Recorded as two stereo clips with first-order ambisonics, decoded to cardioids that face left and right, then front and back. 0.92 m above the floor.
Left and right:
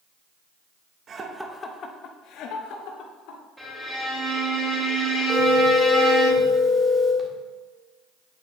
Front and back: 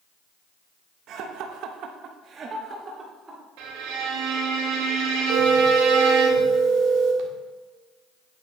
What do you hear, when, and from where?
1.1 s laughter: 145° right, 1.0 m; by 3.4 s 110° left, 3 m
3.6 s a violin: 175° right, 3.5 m
5.3 s a phone ringing: 160° right, 1.8 m